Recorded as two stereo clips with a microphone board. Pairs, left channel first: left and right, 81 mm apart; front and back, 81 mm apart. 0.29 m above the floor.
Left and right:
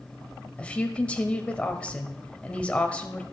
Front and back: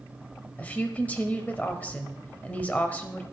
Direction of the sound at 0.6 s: 40° left.